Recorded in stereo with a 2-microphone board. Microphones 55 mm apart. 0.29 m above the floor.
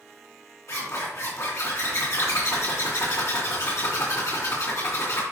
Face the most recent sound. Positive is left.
turn(degrees=65)  # may be behind; listen again after turning